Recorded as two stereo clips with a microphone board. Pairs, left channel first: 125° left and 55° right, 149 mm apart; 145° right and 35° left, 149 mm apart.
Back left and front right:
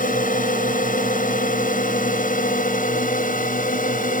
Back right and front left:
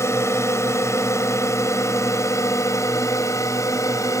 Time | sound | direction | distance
0.0 | a drone | 145° left | ?